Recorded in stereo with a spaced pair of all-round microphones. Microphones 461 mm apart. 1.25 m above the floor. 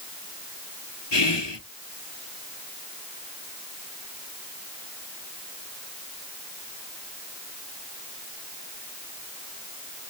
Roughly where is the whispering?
Left.